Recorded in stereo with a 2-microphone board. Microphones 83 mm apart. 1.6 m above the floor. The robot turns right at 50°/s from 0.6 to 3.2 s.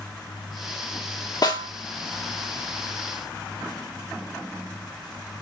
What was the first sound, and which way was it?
A snare drum, 55° left (ahead or behind).